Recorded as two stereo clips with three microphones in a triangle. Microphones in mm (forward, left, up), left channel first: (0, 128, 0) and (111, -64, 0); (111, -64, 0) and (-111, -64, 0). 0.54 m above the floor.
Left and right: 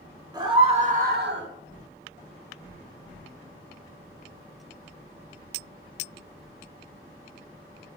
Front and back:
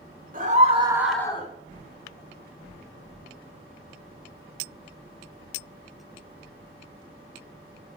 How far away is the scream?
About 1.8 m.